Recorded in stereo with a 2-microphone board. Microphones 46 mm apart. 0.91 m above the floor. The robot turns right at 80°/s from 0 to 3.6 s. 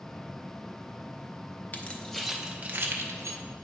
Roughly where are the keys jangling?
Left.